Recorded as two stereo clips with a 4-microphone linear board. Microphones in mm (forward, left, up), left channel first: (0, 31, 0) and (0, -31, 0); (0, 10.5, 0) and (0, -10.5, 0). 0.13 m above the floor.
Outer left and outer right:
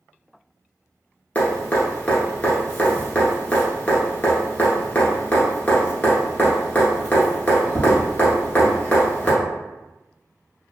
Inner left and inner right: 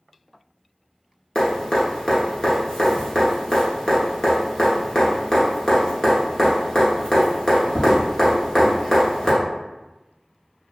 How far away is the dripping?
About 1.1 m.